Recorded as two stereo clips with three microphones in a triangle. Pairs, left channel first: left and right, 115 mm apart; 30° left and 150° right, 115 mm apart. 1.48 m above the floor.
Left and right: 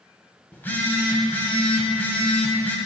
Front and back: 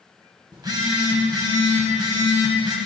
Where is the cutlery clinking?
I don't hear cutlery clinking.